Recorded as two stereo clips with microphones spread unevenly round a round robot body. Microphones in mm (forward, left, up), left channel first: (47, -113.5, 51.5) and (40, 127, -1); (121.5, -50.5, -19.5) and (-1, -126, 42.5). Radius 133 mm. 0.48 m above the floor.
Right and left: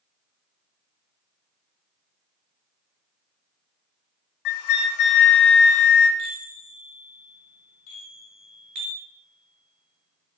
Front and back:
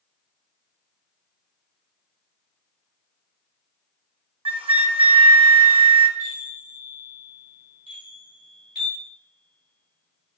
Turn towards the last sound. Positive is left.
turn(degrees=-105)